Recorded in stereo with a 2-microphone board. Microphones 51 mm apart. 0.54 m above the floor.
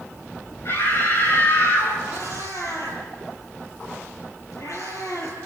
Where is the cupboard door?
I don't hear a cupboard door.